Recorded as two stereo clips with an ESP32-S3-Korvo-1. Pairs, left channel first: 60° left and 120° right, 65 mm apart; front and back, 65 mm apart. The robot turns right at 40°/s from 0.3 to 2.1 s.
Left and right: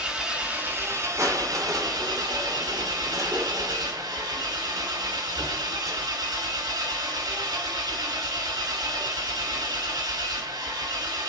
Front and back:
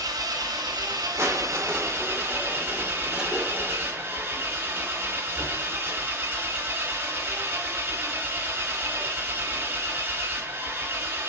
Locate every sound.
0.0 s an engine running: 165° left, 2.5 m; by 11.3 s 120° right, 2.5 m
1.2 s crushing: 140° right, 2.5 m; by 6.1 s 105° right, 2.5 m